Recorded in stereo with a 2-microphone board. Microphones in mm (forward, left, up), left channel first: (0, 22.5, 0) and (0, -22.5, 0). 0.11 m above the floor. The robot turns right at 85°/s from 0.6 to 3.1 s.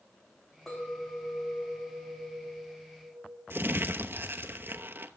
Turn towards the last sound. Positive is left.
turn(degrees=-50)  # may be behind; listen again after turning